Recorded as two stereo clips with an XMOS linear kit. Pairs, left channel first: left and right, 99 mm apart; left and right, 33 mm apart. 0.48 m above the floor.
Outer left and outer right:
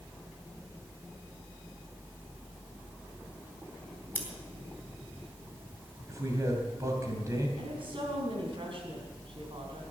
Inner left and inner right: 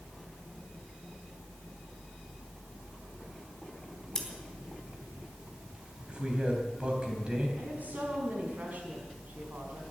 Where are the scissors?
20° left (ahead or behind), 3.5 m.